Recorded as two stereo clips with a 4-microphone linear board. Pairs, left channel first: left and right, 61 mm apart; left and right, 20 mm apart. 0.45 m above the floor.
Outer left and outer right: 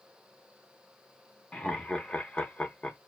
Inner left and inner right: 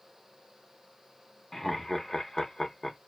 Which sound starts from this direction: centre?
Laughter, at 1.5 s.